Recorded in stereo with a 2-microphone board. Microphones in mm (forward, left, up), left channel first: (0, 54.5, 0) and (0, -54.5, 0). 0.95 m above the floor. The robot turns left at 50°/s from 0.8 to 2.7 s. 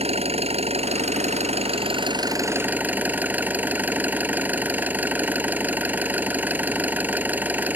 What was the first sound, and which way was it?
An engine running, 70° right.